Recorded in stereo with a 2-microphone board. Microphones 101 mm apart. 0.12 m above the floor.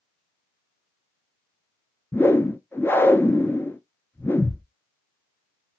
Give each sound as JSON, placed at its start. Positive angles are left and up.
{"t": 2.1, "sound": "a whoosh", "side_deg": 25, "distance_m": 0.6}